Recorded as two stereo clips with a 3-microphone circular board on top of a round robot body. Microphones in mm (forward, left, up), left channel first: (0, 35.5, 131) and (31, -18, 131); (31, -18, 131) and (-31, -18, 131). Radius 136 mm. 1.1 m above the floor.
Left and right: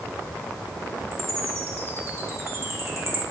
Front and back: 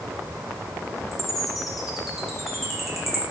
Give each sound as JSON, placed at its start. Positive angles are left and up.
{"t": 1.1, "sound": "a chime", "azimuth_deg": -95, "distance_m": 0.9}